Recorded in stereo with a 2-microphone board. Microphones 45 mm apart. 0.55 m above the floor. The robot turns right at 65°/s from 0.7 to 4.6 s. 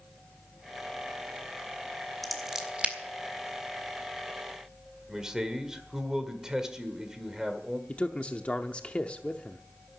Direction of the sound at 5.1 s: 10° right (ahead or behind).